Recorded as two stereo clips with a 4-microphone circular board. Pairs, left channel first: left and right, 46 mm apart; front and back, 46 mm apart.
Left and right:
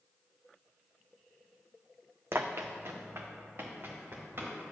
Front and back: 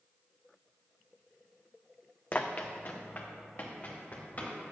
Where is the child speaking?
I don't hear a child speaking.